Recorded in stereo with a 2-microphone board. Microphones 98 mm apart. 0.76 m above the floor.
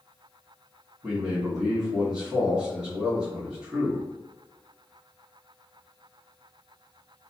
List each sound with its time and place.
1.0 s a man speaking: 10° right (ahead or behind), 1.0 m